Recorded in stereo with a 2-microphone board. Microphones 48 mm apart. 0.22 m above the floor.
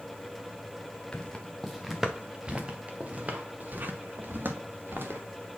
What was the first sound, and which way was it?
Footsteps, 20° left (ahead or behind).